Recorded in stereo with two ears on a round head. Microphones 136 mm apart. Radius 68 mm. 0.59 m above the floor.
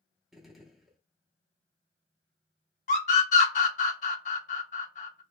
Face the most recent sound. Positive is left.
turn(degrees=50)  # may be behind; listen again after turning